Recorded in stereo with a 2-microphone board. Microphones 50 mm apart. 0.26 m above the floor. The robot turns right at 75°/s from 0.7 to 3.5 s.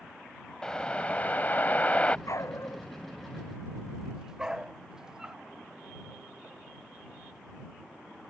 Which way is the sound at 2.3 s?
80° left.